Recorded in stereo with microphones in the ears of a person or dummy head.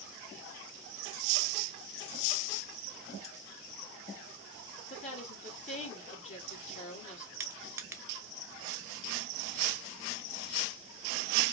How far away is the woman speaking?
About 1.9 m.